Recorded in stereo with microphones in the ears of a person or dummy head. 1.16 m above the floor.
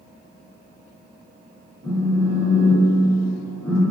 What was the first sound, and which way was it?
A phone buzzing, centre (ahead or behind).